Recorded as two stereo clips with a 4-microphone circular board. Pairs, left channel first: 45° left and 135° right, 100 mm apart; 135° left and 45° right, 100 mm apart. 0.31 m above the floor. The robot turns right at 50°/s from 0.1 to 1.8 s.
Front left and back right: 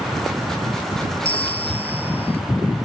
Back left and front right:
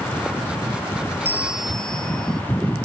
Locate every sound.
1.2 s a bell: 25° left; by 2.4 s 50° left